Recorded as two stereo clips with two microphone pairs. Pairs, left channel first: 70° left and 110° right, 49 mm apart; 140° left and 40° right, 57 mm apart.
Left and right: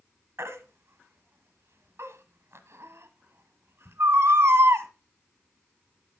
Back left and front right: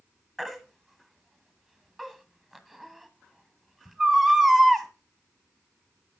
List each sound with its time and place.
0.4 s a baby crying: 135° right, 1.3 m